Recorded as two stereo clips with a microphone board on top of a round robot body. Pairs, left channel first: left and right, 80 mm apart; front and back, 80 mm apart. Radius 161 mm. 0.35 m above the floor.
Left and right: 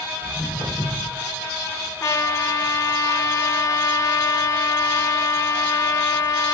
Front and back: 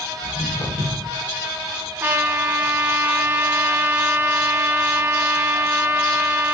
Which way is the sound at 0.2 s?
5° right.